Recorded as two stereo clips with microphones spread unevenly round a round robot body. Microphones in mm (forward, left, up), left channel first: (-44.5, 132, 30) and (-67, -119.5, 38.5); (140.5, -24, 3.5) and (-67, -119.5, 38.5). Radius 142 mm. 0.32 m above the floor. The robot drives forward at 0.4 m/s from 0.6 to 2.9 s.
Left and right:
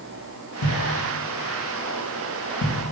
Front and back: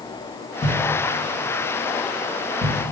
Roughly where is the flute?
No flute in this recording.